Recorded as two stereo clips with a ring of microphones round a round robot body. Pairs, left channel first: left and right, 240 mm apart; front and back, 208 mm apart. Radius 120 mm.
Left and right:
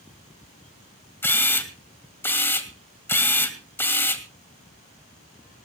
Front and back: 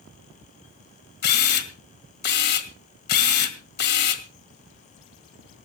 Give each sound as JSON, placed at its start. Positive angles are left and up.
{"t": 1.2, "sound": "a camera shutter", "azimuth_deg": 10, "distance_m": 1.9}